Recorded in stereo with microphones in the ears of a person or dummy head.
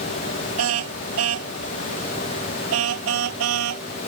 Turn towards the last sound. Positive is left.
turn(degrees=-80)